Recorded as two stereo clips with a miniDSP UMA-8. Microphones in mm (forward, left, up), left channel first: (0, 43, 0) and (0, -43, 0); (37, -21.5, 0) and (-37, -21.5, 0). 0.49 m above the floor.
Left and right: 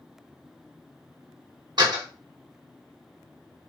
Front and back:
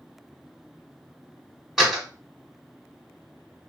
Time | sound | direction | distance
1.8 | a door slam | 95° right | 1.4 m